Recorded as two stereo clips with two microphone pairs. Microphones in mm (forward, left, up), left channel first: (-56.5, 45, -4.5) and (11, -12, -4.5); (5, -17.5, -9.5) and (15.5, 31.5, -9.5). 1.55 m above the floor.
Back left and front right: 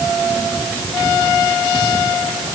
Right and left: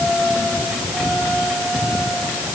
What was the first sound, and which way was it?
Only background noise.